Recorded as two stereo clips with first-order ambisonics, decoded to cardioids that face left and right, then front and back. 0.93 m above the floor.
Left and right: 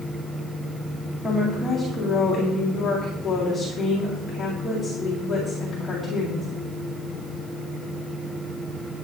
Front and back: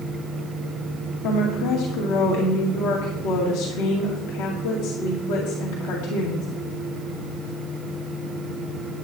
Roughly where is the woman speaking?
Ahead.